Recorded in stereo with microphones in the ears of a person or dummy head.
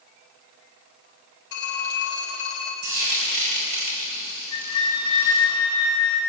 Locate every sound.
1.5 s a phone ringing: 65° left (ahead or behind), 3 m
2.8 s frying: 45° right (ahead or behind), 4.5 m
4.5 s a flute: 25° left (ahead or behind), 1.5 m